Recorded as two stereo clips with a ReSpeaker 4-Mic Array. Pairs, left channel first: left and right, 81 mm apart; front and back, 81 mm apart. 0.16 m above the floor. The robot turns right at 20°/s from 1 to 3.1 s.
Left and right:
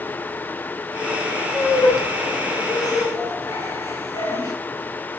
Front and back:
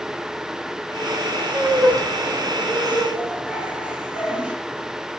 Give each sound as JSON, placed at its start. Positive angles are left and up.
{"t": 1.5, "sound": "laughter", "azimuth_deg": 75, "distance_m": 1.9}